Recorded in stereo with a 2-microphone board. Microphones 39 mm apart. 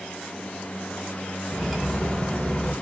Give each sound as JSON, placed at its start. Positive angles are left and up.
{"t": 1.5, "sound": "cutlery clinking", "side_deg": 0, "distance_m": 0.8}